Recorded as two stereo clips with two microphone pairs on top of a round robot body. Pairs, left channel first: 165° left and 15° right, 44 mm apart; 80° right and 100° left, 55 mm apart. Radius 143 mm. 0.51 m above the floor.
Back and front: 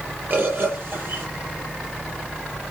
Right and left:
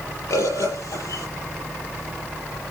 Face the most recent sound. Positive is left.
turn(degrees=-50)